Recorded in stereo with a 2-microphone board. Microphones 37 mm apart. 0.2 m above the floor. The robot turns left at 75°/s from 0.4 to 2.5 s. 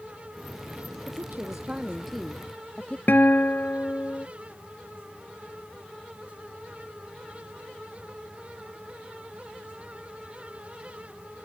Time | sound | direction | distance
1.1 | a woman speaking | 105° right | ?
3.1 | a guitar | 60° left (ahead or behind) | ?